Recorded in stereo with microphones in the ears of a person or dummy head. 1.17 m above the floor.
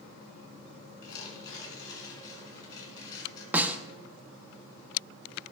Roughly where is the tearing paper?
Left.